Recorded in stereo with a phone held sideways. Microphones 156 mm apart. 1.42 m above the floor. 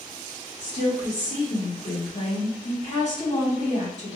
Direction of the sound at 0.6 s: 55° left (ahead or behind).